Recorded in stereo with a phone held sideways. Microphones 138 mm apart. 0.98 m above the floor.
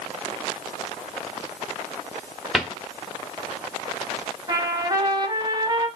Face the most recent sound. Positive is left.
turn(degrees=-30)  # may be behind; listen again after turning